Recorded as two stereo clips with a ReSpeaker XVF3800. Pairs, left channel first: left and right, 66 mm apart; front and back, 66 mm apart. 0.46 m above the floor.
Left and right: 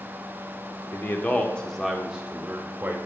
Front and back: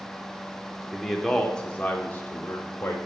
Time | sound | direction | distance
0.9 | a man speaking | 90° left | 0.8 m